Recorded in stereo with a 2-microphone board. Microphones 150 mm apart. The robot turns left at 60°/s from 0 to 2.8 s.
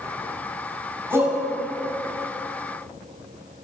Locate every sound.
1.1 s a shout: 15° right (ahead or behind), 5 m; by 1.4 s 30° right (ahead or behind), 5 m